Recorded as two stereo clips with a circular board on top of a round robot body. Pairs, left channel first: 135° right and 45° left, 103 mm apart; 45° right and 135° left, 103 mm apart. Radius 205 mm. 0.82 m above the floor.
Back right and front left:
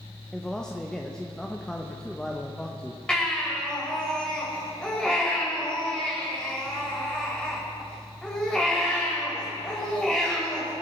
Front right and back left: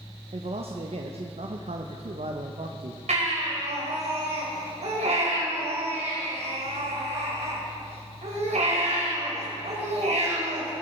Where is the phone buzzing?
I don't hear a phone buzzing.